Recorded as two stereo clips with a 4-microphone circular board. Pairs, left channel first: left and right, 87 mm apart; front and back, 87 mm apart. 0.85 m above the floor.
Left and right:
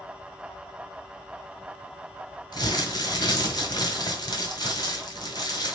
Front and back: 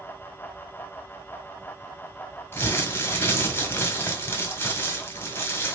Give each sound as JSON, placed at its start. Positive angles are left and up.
{"t": 2.5, "sound": "crumpling", "azimuth_deg": 65, "distance_m": 1.6}